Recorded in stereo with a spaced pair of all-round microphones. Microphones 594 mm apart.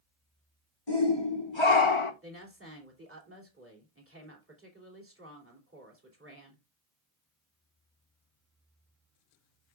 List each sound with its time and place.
0.9 s a shout: 40° left (ahead or behind), 1.7 m; by 2.1 s 55° left (ahead or behind), 1.1 m
2.2 s a woman speaking: 20° right (ahead or behind), 3 m